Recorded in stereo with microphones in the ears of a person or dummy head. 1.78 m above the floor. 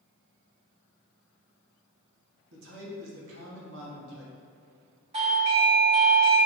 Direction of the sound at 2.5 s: 80° right.